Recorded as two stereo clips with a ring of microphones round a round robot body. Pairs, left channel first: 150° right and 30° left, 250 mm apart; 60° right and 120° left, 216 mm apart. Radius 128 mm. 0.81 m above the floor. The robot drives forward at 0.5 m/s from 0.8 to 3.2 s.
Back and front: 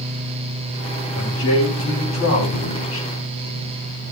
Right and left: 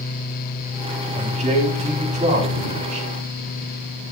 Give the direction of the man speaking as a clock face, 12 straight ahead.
6 o'clock.